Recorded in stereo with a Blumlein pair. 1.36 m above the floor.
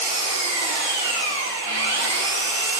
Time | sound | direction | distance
0.0 | an engine running | 65° right | 2.5 m